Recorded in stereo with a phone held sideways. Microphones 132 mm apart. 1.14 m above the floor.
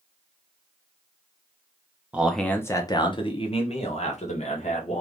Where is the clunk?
I don't hear a clunk.